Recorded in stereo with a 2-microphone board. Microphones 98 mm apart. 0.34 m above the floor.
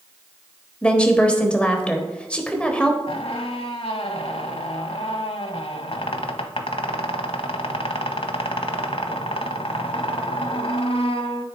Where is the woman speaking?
10° left (ahead or behind), 1.2 m.